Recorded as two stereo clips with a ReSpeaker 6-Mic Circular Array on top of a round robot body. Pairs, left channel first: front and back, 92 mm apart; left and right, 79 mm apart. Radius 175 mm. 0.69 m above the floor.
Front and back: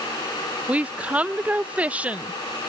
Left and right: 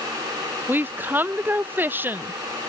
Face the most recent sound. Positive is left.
turn(degrees=-120)